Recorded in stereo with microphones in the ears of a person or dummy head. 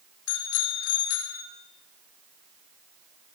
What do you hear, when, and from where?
0.3 s a bicycle bell: 85° left, 4 m